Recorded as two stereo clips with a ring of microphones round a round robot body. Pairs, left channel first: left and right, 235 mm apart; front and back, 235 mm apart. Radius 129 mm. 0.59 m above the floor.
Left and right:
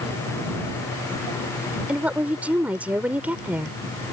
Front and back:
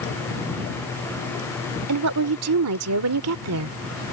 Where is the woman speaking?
175° right.